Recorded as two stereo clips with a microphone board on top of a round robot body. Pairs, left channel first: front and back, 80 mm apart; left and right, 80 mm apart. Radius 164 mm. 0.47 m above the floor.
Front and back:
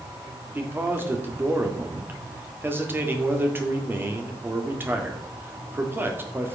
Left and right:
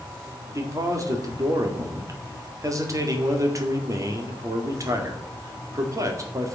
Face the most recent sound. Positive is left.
turn(degrees=-125)